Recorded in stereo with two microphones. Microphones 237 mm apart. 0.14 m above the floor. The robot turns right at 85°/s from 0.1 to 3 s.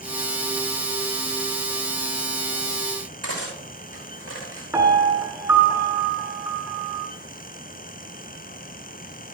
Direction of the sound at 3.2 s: 85° right.